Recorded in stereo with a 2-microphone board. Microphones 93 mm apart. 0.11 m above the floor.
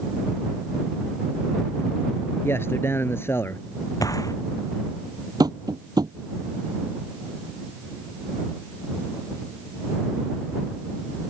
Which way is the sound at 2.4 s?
25° left (ahead or behind).